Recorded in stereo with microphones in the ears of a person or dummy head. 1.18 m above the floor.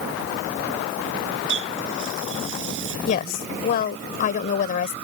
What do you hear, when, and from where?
1.5 s a running tap: 75° right (ahead or behind)
3.1 s a woman speaking: 50° left (ahead or behind)